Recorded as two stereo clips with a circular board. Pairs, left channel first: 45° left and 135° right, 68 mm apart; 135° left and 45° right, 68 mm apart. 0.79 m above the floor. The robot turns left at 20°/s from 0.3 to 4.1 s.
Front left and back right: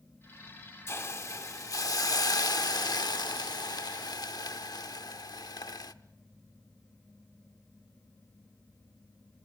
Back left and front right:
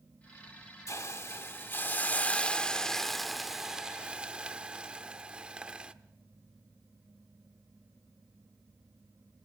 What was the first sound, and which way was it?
A hiss, 95° left.